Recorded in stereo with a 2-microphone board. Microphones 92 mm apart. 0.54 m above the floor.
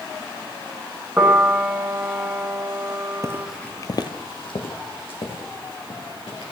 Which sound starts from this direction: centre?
A piano, at 1.2 s.